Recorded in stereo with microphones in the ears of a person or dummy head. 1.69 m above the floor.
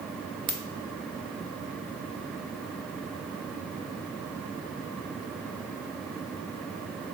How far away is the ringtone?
About 1.5 m.